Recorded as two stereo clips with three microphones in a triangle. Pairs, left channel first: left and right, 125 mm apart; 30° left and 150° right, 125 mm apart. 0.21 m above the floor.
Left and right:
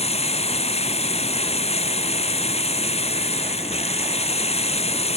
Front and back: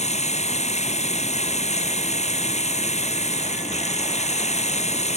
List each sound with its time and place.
0.0 s running water: 55° left